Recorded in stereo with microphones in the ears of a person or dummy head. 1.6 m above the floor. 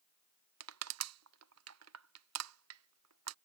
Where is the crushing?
80° right.